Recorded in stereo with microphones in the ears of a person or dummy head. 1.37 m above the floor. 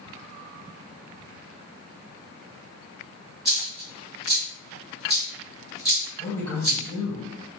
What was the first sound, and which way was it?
A dropped coin, centre (ahead or behind).